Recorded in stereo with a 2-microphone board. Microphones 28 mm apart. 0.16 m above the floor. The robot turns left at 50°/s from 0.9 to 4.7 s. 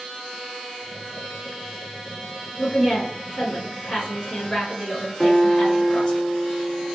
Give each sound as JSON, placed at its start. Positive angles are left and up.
{"t": 2.6, "sound": "a woman speaking", "azimuth_deg": 145, "distance_m": 1.9}
{"t": 5.2, "sound": "a guitar", "side_deg": 30, "distance_m": 1.6}